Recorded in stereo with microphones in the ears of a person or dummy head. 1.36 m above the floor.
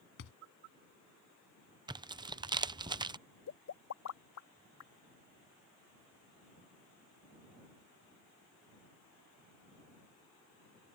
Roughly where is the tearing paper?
Centre.